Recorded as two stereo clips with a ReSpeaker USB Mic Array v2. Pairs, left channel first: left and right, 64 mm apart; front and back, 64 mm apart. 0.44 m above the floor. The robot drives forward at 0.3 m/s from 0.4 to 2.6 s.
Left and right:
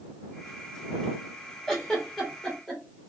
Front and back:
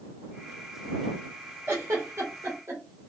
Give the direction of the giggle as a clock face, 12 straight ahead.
6 o'clock.